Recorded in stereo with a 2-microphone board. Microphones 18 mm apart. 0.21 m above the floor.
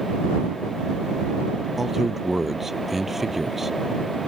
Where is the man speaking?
10° right (ahead or behind).